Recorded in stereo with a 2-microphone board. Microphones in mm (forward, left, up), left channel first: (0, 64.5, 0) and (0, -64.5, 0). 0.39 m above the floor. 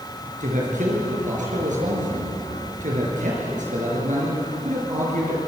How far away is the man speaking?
About 5.5 m.